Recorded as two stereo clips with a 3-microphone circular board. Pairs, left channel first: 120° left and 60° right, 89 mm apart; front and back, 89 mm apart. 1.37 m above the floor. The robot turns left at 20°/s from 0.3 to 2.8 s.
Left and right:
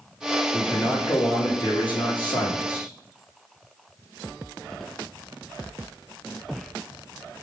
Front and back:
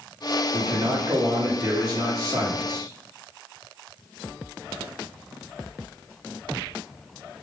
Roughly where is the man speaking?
Behind left.